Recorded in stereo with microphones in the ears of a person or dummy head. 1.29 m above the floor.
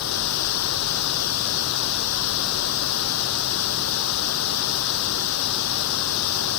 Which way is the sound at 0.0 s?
80° left.